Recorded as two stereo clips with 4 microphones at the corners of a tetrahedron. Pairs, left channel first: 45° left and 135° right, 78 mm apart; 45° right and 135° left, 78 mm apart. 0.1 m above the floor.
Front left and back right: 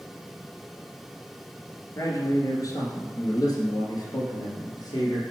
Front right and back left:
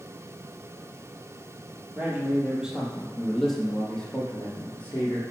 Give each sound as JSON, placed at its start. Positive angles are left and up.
{"t": 1.9, "sound": "a man speaking", "azimuth_deg": 75, "distance_m": 1.8}